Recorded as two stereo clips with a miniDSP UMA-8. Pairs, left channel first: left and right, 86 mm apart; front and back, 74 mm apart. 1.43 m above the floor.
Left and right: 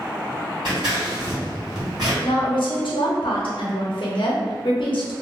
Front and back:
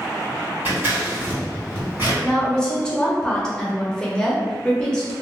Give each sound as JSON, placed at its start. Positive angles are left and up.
{"t": 0.7, "sound": "scissors", "azimuth_deg": -120, "distance_m": 1.8}
{"t": 2.2, "sound": "a woman speaking", "azimuth_deg": 80, "distance_m": 0.7}